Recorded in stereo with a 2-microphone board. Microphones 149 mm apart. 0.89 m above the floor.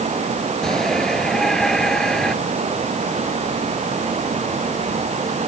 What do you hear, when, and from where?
0.6 s a shout: 5° left (ahead or behind)